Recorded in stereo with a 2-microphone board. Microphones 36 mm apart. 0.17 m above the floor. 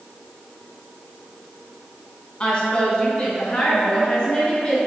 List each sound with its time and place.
2.4 s a woman speaking: 25° left (ahead or behind), 1.3 m